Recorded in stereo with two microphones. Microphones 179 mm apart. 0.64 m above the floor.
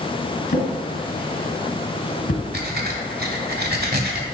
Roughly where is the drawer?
Left.